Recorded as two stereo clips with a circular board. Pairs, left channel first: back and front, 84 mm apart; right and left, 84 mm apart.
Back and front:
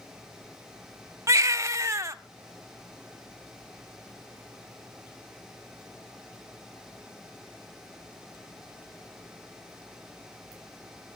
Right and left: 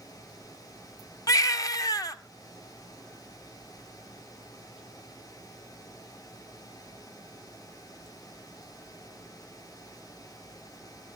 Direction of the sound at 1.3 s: 50° right.